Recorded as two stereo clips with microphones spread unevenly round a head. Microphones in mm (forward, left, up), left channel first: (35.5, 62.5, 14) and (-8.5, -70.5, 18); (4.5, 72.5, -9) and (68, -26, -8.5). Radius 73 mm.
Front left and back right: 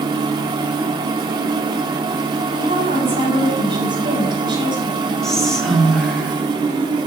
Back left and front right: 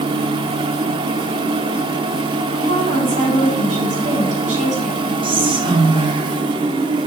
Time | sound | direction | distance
0.0 | a machine running | 65° right | 0.9 m
2.5 | a woman speaking | 50° right | 6 m
5.2 | whispering | 15° right | 2.5 m